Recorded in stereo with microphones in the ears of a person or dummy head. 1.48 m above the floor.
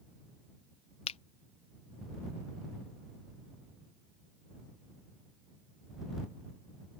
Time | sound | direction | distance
1.1 | a finger snap | 35° left (ahead or behind) | ?